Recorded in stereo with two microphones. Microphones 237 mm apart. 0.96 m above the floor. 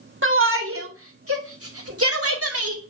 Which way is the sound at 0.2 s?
55° right (ahead or behind).